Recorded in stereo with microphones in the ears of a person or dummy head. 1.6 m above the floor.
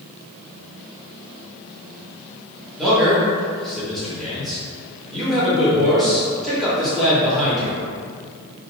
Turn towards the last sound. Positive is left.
turn(degrees=0)  # may be behind; listen again after turning